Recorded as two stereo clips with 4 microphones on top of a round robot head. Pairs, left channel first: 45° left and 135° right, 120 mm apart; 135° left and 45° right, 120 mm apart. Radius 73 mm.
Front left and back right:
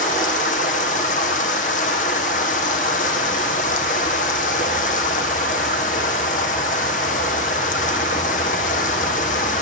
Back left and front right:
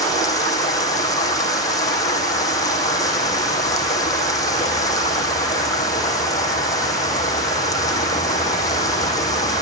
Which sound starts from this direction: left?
Running water, at 0.0 s.